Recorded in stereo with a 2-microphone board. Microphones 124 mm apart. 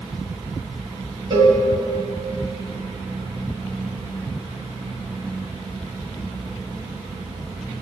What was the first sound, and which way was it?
A cowbell, 40° right (ahead or behind).